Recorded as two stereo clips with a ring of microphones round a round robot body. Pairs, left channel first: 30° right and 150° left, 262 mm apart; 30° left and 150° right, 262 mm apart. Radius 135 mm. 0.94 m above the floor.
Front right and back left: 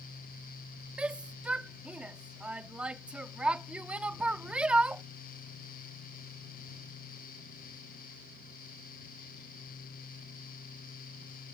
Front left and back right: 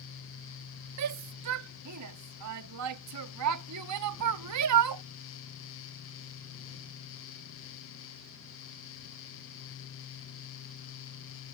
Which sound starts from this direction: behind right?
A shout, at 1.0 s.